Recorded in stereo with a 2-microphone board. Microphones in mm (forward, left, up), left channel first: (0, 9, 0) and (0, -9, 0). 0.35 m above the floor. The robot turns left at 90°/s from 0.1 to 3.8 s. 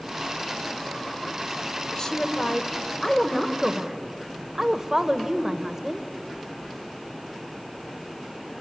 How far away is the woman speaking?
About 1.6 m.